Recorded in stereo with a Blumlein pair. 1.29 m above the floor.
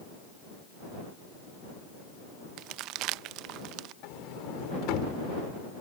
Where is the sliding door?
40° left.